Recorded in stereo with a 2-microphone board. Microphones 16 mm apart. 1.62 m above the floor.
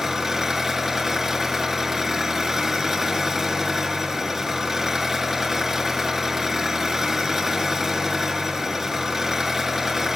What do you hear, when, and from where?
0.0 s an engine running: 20° right (ahead or behind), 6.5 m